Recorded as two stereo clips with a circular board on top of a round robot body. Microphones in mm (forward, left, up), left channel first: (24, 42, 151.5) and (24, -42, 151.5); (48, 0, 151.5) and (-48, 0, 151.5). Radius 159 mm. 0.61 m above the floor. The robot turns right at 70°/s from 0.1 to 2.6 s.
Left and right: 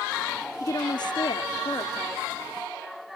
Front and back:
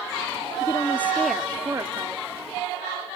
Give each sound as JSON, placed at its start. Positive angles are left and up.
{"t": 0.6, "sound": "a woman speaking", "azimuth_deg": 45}